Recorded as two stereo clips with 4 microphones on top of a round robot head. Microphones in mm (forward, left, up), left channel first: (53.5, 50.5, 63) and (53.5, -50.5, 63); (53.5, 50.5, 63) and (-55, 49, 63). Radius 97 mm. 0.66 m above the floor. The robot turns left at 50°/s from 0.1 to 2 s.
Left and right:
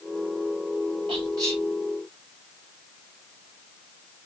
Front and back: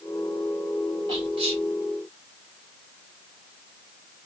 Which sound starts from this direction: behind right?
Whispering, at 1.1 s.